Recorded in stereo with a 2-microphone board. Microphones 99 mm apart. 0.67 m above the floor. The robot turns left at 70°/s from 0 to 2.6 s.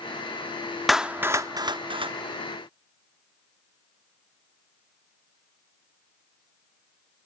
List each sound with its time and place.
0.9 s a clap: centre (ahead or behind), 0.8 m; by 2.1 s 65° right (ahead or behind), 0.8 m